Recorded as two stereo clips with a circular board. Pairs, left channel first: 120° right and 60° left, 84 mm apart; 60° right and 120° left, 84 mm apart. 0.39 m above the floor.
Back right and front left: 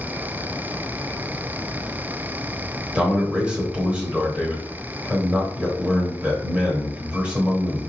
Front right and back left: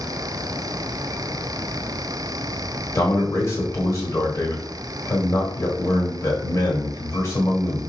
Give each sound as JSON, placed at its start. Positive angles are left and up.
{"t": 3.0, "sound": "a man speaking", "azimuth_deg": -10, "distance_m": 1.3}